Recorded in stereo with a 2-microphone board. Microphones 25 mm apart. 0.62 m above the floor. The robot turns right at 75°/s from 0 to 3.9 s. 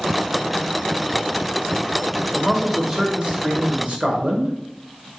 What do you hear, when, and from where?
2.4 s a man speaking: 160° left, 1.2 m; by 5.1 s 85° right, 1.2 m